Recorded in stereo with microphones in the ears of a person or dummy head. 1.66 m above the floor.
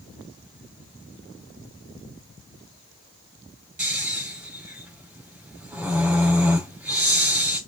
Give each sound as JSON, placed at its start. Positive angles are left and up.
{"t": 3.8, "sound": "snoring", "side_deg": -10, "distance_m": 4.5}